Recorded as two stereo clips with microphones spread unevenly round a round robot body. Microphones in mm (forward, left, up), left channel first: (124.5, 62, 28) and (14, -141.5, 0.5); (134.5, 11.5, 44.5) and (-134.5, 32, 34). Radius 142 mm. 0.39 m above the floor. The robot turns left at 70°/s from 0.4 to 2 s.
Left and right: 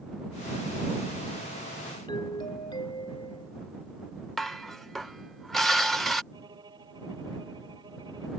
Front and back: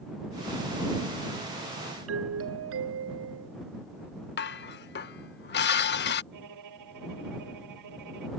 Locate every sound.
2.1 s a doorbell: 140° left
4.4 s dishes clattering: 35° right
6.3 s a violin: 165° left